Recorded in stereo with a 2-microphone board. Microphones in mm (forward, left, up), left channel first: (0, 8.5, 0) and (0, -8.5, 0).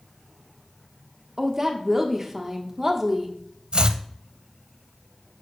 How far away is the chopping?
About 0.5 m.